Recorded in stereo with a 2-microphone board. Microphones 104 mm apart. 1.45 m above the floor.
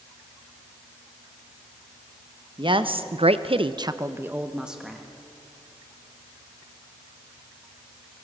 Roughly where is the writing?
I don't hear writing.